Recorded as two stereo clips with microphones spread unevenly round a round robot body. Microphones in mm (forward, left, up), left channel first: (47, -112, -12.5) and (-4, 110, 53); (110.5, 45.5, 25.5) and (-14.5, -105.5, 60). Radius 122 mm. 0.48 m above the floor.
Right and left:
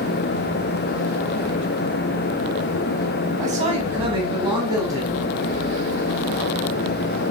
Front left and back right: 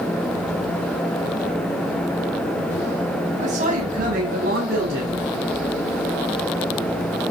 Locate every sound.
3.4 s a man speaking: 170° left, 4.5 m; by 5.2 s 175° right, 5 m